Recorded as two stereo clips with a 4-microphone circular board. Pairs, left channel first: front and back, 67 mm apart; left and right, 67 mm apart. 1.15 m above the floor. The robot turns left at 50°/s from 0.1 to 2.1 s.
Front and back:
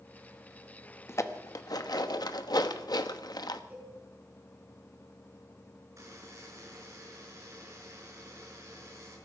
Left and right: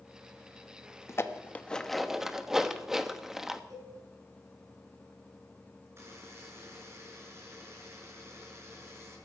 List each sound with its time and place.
1.1 s dishes clattering: 45° left, 1.0 m; by 3.6 s 5° right, 1.0 m
3.7 s a cowbell: 115° right, 6 m
6.0 s a buzzer: 140° right, 5.5 m